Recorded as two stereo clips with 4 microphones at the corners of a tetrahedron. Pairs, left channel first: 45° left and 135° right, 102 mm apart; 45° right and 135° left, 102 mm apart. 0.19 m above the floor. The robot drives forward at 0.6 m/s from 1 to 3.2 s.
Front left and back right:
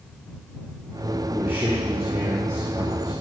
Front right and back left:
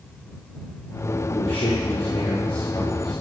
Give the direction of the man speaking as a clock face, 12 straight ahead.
2 o'clock.